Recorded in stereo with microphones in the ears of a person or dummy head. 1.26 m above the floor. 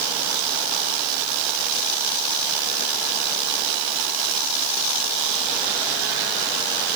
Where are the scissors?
I don't hear scissors.